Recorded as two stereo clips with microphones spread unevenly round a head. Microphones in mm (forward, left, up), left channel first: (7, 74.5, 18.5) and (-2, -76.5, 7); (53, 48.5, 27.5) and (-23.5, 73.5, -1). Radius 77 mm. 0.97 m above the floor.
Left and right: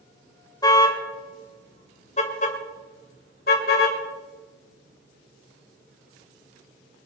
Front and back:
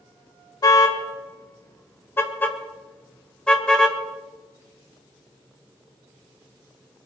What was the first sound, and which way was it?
A car horn, 20° left.